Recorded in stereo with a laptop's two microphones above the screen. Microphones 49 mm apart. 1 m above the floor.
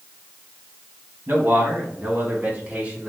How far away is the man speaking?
About 1.3 m.